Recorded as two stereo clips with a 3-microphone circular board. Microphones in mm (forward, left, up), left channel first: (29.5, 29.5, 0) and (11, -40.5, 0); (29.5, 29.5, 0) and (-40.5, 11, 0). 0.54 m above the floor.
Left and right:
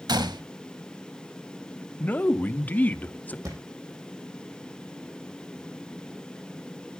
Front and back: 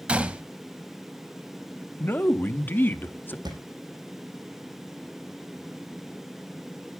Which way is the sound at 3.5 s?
145° right.